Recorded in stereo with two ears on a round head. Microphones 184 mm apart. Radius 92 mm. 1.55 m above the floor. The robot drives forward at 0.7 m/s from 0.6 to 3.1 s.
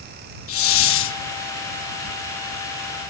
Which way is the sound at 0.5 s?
75° left (ahead or behind).